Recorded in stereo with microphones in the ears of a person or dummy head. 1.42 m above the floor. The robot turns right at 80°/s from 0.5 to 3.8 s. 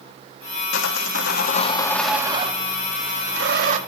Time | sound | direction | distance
0.7 | sawing | 75° left | 1.5 m